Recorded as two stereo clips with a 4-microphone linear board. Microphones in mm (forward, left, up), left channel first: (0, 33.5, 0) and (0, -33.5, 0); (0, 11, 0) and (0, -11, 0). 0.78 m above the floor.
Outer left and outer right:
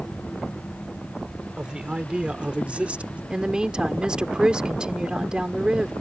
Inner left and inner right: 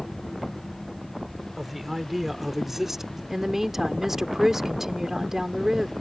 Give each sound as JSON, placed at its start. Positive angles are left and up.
{"t": 1.6, "sound": "a man speaking", "side_deg": -15}
{"t": 3.3, "sound": "a woman speaking", "side_deg": -15}